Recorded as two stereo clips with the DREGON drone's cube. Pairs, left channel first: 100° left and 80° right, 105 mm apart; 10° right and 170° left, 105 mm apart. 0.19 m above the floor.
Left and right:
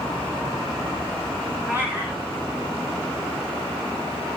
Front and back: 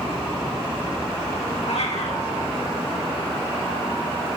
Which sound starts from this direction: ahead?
A cat meowing, at 1.7 s.